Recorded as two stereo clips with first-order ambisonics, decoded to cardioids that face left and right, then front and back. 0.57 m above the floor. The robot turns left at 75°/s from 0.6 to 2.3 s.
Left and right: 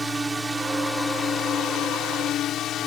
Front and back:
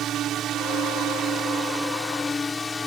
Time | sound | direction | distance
0.0 | a drone | 165° right | ?